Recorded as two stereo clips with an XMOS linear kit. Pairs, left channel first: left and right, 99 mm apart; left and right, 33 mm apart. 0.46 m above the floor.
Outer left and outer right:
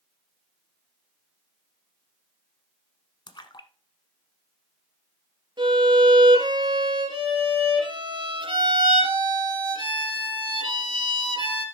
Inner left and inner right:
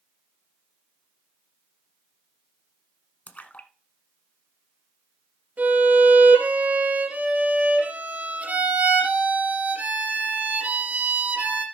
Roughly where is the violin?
Right.